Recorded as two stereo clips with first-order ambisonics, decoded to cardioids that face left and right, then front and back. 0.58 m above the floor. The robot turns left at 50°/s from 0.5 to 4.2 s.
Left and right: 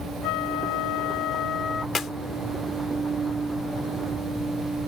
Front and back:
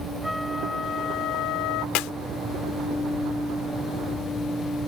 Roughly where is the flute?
Left.